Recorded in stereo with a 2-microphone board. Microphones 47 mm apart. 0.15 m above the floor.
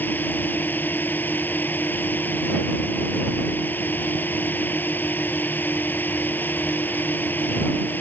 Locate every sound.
0.0 s a drone: 40° left (ahead or behind)